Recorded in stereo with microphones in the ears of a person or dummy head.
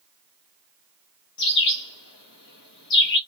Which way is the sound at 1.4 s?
60° left (ahead or behind).